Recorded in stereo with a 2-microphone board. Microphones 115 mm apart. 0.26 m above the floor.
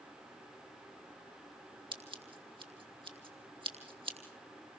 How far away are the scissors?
About 3 m.